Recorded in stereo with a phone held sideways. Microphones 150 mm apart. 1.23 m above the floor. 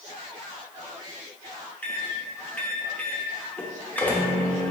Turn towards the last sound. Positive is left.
turn(degrees=10)  # may be behind; listen again after turning